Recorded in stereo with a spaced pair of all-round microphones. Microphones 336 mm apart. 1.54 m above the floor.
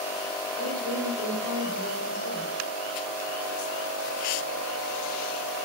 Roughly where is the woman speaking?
Right.